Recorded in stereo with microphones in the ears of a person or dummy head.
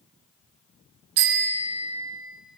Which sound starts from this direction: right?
A bicycle bell, at 1.2 s.